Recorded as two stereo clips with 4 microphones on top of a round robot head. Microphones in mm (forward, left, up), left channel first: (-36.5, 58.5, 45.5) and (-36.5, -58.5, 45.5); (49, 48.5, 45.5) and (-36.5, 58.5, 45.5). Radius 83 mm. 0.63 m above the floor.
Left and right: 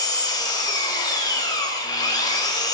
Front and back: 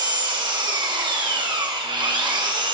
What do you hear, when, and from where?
0.0 s an engine running: 145° left, 2.5 m